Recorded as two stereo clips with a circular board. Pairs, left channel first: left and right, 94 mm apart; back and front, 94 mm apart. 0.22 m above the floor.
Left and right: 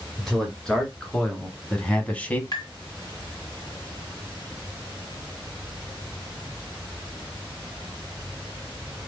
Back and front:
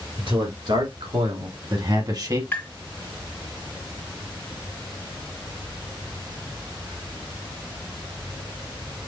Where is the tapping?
115° left, 2 m.